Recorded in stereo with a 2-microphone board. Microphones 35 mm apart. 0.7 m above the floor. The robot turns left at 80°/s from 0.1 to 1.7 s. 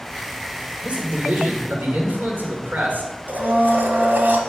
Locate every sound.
0.8 s a man speaking: 50° right, 2.0 m; by 3.1 s 120° right, 2.0 m
3.3 s a blender: 65° right (ahead or behind), 1.1 m